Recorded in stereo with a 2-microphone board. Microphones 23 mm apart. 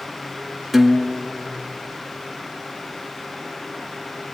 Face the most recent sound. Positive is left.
turn(degrees=-10)  # may be behind; listen again after turning